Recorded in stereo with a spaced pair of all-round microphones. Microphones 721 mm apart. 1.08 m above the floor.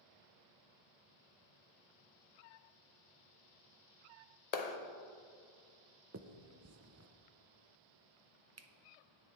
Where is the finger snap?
25° right (ahead or behind), 0.5 m.